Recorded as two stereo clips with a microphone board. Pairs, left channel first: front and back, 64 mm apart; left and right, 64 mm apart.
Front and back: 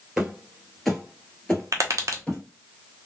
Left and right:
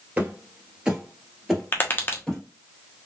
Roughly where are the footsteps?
Right.